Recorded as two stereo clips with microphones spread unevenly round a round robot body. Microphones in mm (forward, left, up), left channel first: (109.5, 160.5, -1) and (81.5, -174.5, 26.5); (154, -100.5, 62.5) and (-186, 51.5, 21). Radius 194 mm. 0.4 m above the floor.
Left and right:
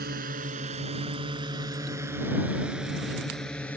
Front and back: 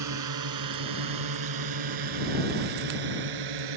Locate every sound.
0.0 s a drone: 165° right; by 3.8 s 170° left